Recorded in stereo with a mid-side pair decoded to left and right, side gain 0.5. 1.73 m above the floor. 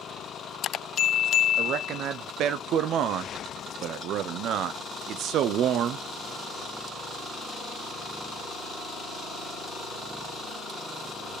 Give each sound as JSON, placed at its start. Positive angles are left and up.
{"t": 1.6, "sound": "a man speaking", "azimuth_deg": -70, "distance_m": 1.0}